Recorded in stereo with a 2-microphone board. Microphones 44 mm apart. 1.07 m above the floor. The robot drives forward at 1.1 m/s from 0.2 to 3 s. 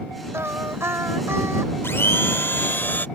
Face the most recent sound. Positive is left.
turn(degrees=50)  # may be behind; listen again after turning